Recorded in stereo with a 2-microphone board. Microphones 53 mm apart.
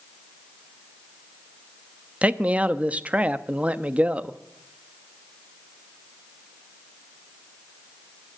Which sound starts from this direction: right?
A man speaking, at 2.2 s.